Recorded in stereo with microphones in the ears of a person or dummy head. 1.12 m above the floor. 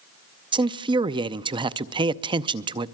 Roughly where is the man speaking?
Right.